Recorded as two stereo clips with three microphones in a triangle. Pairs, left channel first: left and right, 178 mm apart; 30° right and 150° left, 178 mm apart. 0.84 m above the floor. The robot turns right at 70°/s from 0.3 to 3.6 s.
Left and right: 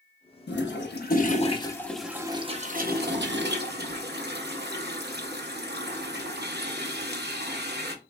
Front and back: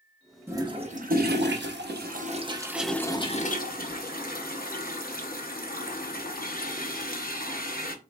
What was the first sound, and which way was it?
A toilet flushing, 75° left.